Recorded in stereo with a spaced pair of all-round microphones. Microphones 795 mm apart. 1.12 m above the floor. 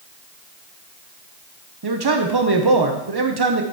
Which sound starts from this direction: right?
A man speaking, at 1.8 s.